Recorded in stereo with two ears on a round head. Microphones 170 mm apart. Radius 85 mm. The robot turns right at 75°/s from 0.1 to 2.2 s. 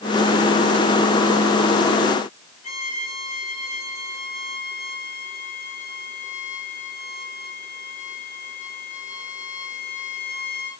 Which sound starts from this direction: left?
A violin, at 2.6 s.